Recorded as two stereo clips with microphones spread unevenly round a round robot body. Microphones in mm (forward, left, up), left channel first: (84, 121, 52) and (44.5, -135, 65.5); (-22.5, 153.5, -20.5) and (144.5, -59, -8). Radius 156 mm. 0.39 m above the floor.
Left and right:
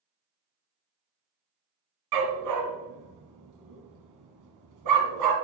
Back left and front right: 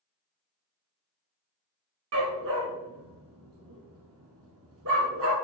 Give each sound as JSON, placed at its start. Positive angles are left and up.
{"t": 2.1, "sound": "a dog barking", "azimuth_deg": -105, "distance_m": 1.6}